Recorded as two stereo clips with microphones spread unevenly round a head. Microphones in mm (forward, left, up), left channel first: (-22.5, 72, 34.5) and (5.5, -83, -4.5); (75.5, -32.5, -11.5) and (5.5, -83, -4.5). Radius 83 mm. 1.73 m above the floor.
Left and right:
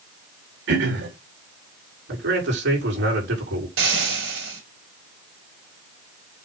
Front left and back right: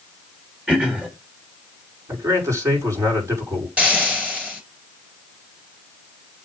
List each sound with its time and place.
0.7 s throat clearing: 65° right, 3.5 m
2.1 s a man speaking: 90° right, 5 m
3.8 s frying: 70° right, 5 m